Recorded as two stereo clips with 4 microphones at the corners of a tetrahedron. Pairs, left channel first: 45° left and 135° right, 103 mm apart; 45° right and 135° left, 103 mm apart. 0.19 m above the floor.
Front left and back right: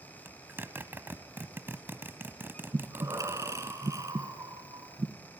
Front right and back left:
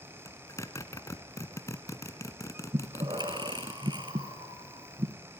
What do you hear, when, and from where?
0.2 s a zipper: 80° right, 1.2 m
2.7 s breathing: 170° left, 2 m